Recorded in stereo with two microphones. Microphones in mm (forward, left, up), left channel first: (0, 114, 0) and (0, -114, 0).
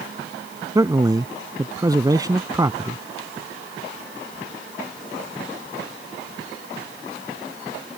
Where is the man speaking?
15° right (ahead or behind).